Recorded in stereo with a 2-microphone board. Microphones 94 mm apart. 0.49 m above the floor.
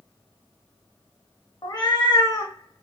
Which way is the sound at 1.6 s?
45° left (ahead or behind).